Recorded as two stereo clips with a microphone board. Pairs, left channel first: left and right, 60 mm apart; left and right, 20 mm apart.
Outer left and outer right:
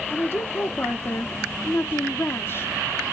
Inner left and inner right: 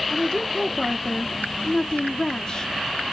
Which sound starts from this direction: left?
A woman speaking, at 0.1 s.